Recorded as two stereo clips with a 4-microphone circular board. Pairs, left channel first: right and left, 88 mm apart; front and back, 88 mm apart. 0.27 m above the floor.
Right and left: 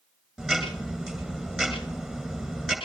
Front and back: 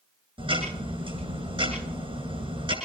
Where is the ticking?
Straight behind, 8 m.